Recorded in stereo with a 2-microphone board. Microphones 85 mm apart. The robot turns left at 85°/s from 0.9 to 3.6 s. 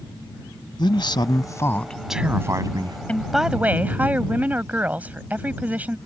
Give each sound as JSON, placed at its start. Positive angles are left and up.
{"t": 0.8, "sound": "a man speaking", "azimuth_deg": 95}
{"t": 3.1, "sound": "a woman speaking", "azimuth_deg": 20}